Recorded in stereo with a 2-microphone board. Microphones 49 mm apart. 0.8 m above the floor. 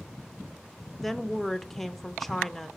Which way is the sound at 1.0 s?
Centre (ahead or behind).